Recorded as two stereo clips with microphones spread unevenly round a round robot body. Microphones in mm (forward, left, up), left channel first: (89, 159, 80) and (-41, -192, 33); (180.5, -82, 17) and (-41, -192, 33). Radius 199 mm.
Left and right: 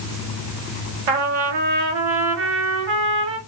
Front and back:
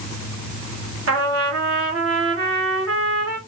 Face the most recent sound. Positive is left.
turn(degrees=-120)